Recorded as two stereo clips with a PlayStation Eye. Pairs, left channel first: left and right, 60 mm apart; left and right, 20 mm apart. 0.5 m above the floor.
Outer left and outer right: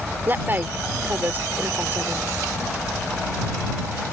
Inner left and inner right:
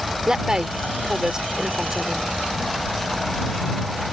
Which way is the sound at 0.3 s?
35° right (ahead or behind).